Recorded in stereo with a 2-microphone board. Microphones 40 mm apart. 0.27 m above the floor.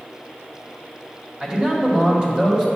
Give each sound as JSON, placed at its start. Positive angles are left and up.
{"t": 1.4, "sound": "a man speaking", "side_deg": -20, "distance_m": 1.7}